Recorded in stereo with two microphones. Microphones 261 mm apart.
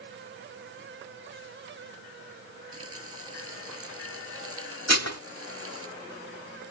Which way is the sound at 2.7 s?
55° right (ahead or behind).